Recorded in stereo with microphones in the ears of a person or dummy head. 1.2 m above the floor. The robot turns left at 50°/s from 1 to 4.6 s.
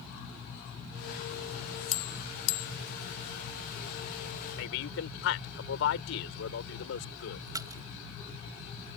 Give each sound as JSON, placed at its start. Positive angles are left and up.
{"t": 1.9, "sound": "a bell", "side_deg": 45}
{"t": 4.6, "sound": "a man speaking", "side_deg": 70}
{"t": 7.5, "sound": "a splash", "side_deg": -15}